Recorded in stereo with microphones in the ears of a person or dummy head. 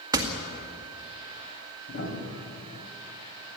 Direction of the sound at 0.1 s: 20° right (ahead or behind).